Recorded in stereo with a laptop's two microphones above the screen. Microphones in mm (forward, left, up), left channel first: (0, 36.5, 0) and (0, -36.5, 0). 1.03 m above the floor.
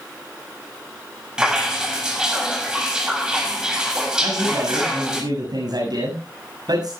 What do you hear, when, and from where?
1.4 s dripping: 10° right (ahead or behind), 6.5 m
4.2 s a man speaking: 65° right (ahead or behind), 6.5 m